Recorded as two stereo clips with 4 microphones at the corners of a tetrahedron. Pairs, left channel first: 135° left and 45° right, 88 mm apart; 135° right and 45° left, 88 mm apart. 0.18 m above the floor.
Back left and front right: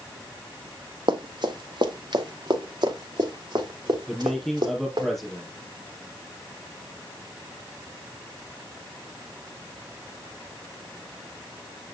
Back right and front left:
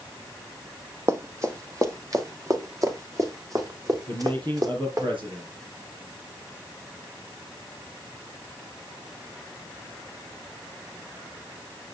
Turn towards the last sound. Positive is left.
turn(degrees=45)